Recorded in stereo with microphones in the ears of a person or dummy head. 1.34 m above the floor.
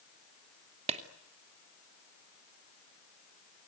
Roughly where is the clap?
Right.